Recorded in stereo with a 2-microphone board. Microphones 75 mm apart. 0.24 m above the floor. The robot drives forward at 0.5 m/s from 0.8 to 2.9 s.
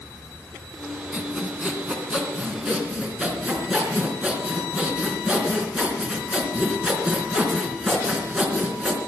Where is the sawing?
15° right (ahead or behind), 2.5 m.